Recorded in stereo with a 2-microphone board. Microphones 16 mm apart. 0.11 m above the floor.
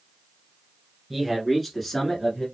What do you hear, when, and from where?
1.1 s a man speaking: 10° right (ahead or behind), 1.5 m; by 2.5 s 15° left (ahead or behind), 1.7 m